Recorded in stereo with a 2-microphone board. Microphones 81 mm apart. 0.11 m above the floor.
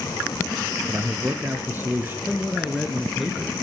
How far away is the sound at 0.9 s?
About 1.5 m.